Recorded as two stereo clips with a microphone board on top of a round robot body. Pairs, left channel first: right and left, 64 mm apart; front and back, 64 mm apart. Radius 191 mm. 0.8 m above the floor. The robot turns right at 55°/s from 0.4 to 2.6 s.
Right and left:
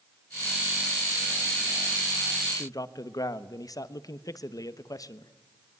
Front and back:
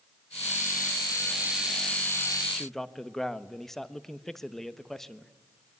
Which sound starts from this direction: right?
A man speaking, at 2.5 s.